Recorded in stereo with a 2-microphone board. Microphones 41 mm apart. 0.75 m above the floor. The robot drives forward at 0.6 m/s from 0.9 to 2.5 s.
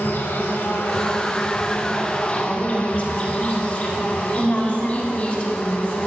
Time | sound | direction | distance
0.0 | an insect | 65° left (ahead or behind) | 1.3 m
2.4 | a woman speaking | 35° left (ahead or behind) | 3 m